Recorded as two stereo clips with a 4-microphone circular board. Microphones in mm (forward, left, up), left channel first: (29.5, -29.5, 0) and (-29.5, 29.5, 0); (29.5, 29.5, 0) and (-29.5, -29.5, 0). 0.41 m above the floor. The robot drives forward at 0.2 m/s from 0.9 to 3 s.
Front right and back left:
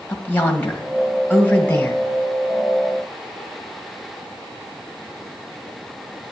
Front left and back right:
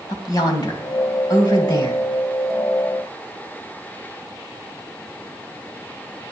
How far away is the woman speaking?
About 1.7 m.